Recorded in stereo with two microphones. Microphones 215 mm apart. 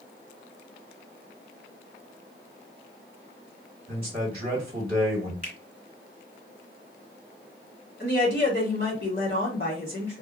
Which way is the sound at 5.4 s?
35° left (ahead or behind).